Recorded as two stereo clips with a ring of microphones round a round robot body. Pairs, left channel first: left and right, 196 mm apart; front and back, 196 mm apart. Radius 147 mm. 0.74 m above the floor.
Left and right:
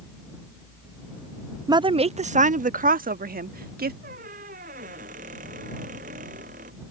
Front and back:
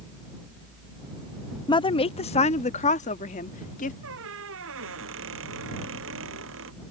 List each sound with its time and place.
1.7 s a woman speaking: 40° right; by 3.9 s 55° right
4.0 s a squeak: 150° right